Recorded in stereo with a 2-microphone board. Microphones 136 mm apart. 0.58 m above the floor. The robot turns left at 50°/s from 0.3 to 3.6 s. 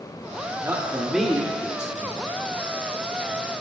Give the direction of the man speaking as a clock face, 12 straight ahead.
5 o'clock.